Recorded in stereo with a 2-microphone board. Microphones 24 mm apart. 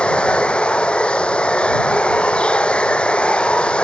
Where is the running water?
50° left (ahead or behind).